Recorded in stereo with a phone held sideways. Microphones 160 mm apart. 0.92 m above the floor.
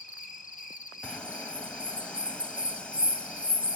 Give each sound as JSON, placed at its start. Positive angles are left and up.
{"t": 0.0, "sound": "an insect", "side_deg": 50, "distance_m": 1.0}
{"t": 1.0, "sound": "a bird", "side_deg": 5, "distance_m": 0.8}